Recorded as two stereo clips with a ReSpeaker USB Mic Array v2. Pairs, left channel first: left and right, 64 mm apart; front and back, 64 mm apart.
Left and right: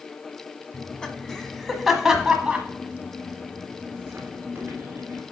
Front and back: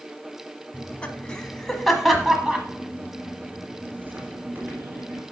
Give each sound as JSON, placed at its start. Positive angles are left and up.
{"t": 0.7, "sound": "laughter", "azimuth_deg": 35, "distance_m": 1.3}